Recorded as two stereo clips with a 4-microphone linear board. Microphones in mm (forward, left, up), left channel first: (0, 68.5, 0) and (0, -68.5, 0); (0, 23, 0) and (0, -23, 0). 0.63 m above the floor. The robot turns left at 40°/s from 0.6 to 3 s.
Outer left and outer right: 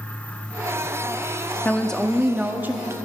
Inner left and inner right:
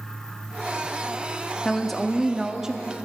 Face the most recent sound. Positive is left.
turn(degrees=-35)